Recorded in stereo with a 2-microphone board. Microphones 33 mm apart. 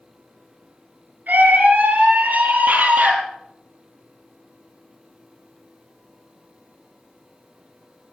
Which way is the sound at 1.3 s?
60° right (ahead or behind).